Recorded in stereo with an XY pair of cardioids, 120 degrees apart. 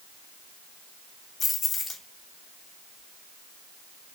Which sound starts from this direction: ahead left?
Keys jangling, at 1.4 s.